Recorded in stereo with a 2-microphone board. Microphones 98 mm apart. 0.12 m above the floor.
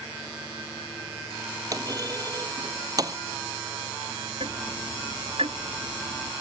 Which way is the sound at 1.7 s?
40° right (ahead or behind).